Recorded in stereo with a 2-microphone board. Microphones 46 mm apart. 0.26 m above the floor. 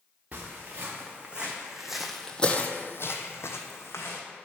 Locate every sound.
0.3 s footsteps: 30° right (ahead or behind), 1.6 m; by 4.2 s 70° left (ahead or behind), 1.2 m